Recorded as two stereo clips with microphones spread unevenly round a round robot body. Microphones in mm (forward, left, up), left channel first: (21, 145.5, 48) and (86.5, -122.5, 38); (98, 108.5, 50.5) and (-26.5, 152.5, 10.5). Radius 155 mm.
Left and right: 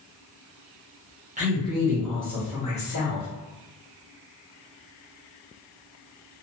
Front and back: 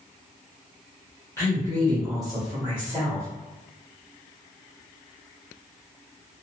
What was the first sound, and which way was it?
A woman speaking, 100° right.